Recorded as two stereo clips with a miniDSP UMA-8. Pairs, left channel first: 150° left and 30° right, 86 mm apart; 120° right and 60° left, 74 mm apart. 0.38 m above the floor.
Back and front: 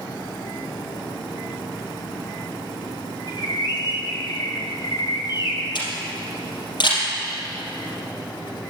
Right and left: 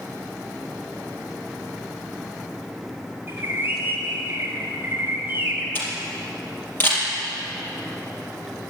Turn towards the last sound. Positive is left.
turn(degrees=180)